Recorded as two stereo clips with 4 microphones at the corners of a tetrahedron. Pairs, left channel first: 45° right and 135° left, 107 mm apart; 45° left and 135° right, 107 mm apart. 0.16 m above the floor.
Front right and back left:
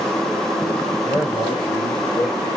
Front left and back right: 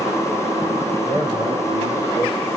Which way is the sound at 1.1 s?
105° right.